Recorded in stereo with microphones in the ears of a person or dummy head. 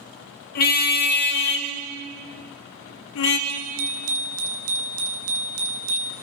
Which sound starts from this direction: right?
A bicycle bell, at 3.5 s.